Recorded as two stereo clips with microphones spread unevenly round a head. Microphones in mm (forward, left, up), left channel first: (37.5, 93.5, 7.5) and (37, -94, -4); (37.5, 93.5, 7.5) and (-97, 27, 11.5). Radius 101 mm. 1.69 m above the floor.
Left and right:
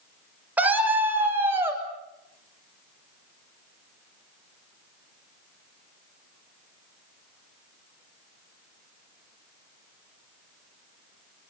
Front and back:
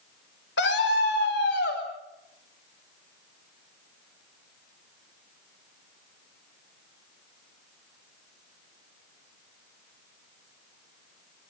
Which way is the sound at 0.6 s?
10° right.